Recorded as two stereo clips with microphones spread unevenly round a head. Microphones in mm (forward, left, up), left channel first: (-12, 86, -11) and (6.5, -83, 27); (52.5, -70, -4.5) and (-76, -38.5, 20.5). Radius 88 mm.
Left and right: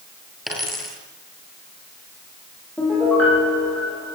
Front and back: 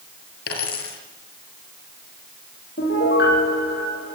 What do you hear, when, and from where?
0.5 s a dropped coin: 5° left, 7 m
2.8 s a piano: 15° left, 10 m